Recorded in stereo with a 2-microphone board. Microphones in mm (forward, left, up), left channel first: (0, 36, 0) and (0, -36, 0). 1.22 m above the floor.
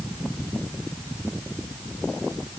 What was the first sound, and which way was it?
Only background noise.